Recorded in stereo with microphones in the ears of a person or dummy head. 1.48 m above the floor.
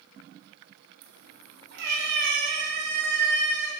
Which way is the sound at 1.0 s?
65° right (ahead or behind).